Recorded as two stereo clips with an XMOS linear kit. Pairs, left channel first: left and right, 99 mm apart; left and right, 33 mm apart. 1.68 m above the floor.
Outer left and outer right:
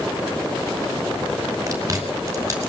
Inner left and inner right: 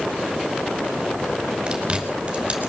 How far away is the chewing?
About 5.5 m.